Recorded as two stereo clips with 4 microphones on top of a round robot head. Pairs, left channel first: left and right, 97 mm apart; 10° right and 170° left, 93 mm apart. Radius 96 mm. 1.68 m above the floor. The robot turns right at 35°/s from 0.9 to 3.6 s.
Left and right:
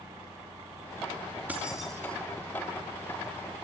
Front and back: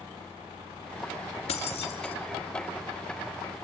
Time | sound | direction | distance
1.5 | keys jangling | 10° right | 2 m